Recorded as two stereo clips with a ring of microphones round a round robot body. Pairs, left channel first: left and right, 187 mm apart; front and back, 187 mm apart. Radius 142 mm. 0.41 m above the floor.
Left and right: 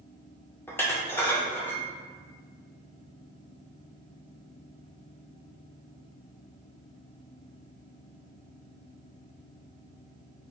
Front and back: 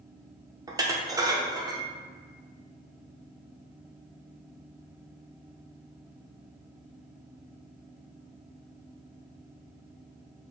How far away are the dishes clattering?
About 0.5 m.